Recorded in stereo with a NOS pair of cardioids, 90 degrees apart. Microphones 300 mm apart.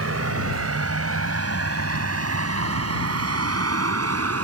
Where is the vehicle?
50° right; by 4.4 s 55° right.